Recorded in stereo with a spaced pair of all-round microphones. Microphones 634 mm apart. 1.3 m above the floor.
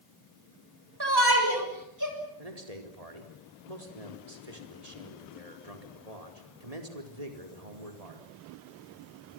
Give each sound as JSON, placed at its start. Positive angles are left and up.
{"t": 1.0, "sound": "a shout", "side_deg": -35, "distance_m": 7.5}
{"t": 2.4, "sound": "a man speaking", "side_deg": -65, "distance_m": 4.0}